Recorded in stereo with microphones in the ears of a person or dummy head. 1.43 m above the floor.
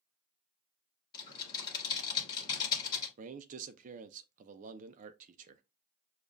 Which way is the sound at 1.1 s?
25° left (ahead or behind).